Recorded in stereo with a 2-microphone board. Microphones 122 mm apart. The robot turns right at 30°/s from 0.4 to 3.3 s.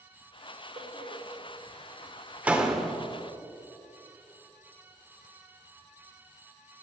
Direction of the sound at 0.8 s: 60° right (ahead or behind).